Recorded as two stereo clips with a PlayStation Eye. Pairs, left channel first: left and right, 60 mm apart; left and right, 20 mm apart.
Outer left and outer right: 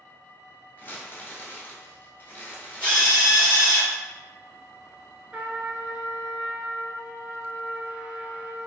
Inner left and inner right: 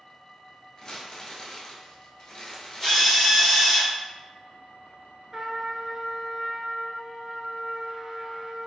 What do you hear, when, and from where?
0.8 s crumpling: 35° left (ahead or behind), 0.9 m
2.8 s a drill: 20° left (ahead or behind), 1.8 m
5.3 s a trumpet: 20° right (ahead or behind), 0.8 m